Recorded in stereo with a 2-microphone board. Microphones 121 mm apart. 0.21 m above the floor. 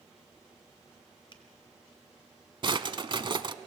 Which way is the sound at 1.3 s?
40° left (ahead or behind).